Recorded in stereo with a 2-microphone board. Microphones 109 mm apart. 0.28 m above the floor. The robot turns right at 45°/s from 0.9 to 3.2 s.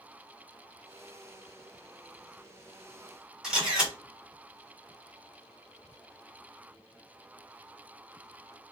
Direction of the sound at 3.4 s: 5° right (ahead or behind).